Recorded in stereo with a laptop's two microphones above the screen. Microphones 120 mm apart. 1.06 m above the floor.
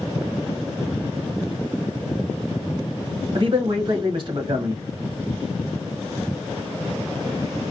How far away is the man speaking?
About 1.0 m.